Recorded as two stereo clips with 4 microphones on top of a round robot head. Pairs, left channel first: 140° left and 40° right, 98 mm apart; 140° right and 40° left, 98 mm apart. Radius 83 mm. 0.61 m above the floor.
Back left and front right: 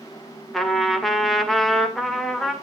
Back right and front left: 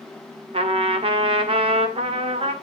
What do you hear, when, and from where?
0.5 s a trumpet: 55° left, 1.9 m